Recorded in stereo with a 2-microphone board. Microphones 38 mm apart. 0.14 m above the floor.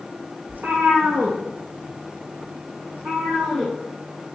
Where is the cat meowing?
65° right (ahead or behind), 1.1 m; by 3.7 s 80° right, 2.5 m.